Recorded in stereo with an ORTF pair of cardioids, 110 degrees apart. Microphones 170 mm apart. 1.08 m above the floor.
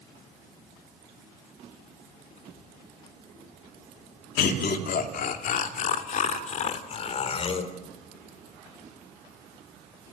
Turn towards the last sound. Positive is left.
turn(degrees=35)